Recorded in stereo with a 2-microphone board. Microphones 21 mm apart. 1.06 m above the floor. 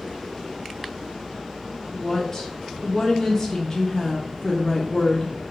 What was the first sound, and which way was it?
A woman speaking, 20° left (ahead or behind).